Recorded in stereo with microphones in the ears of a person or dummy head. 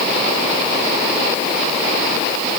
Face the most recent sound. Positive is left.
No sound to turn to.